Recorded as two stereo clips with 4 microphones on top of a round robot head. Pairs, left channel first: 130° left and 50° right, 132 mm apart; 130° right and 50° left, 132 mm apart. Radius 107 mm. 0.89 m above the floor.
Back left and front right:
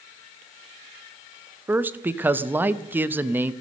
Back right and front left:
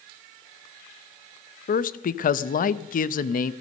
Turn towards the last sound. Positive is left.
turn(degrees=-125)